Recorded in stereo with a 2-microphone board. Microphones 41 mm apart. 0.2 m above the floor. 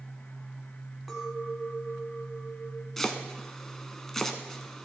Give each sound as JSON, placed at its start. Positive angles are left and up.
{"t": 1.1, "sound": "a clink", "side_deg": -5, "distance_m": 1.2}
{"t": 3.0, "sound": "chopping", "side_deg": 10, "distance_m": 0.7}